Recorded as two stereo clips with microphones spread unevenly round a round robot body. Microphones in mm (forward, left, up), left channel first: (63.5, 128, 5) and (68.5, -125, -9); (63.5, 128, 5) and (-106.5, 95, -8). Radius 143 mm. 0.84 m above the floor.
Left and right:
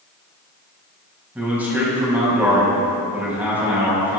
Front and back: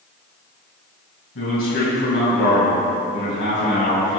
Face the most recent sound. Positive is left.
turn(degrees=-5)